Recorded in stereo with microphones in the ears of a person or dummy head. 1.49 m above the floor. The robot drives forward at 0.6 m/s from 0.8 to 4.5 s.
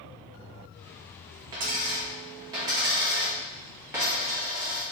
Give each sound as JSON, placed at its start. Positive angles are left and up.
{"t": 1.5, "sound": "a dropped coin", "side_deg": -20, "distance_m": 0.8}